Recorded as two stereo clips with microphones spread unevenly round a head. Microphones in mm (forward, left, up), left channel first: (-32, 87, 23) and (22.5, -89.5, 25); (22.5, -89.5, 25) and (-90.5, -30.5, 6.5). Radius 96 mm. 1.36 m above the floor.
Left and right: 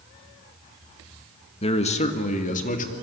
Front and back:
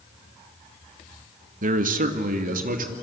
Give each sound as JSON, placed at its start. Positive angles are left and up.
{"t": 1.6, "sound": "a man speaking", "azimuth_deg": 170, "distance_m": 1.5}